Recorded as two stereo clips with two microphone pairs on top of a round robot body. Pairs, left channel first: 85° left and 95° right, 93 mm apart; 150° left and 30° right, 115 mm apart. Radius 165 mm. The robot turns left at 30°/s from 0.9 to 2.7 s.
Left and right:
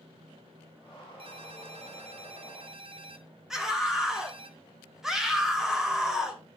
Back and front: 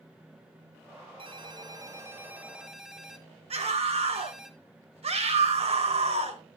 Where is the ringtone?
70° right, 1.4 m; by 4.5 s 115° right, 1.4 m.